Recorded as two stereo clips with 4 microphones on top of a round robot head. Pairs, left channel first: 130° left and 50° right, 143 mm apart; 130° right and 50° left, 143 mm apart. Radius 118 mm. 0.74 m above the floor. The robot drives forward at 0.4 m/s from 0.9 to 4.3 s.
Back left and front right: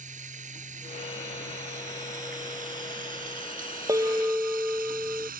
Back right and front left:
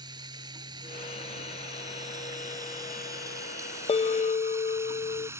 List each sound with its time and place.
0.0 s running water: 15° right; by 5.4 s 25° right
3.9 s a bell: 110° right; by 5.3 s 130° right